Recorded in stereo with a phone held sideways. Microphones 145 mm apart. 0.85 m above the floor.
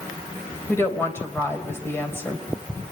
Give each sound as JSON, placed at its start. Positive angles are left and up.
{"t": 0.7, "sound": "a woman speaking", "side_deg": 15, "distance_m": 3.5}